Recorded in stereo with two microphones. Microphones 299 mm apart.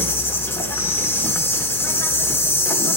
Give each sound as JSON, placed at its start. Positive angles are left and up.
{"t": 0.0, "sound": "an insect", "side_deg": 10, "distance_m": 1.2}